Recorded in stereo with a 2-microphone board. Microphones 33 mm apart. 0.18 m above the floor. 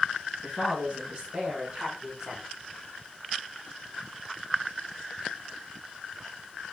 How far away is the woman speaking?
About 2.5 m.